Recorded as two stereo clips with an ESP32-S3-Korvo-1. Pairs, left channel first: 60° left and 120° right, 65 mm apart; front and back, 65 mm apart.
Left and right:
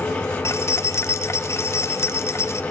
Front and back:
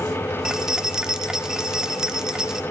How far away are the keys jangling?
About 0.7 m.